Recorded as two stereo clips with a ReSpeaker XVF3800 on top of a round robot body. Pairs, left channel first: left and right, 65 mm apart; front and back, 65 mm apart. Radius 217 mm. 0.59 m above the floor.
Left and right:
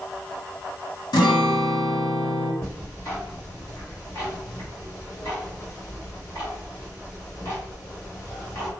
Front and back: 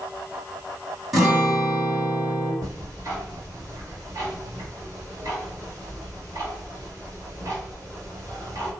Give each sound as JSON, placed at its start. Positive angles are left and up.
{"t": 1.1, "sound": "a guitar", "azimuth_deg": 95, "distance_m": 1.2}
{"t": 2.6, "sound": "ticking", "azimuth_deg": 140, "distance_m": 2.0}